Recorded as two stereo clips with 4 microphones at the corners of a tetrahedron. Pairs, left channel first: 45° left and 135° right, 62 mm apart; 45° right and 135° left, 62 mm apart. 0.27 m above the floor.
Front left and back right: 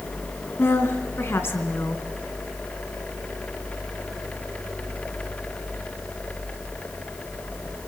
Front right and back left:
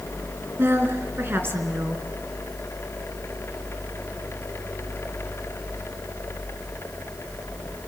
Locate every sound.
0.6 s a woman speaking: 90° left, 3 m